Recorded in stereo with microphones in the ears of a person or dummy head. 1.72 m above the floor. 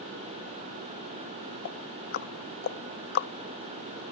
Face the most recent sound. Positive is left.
turn(degrees=50)  # may be behind; listen again after turning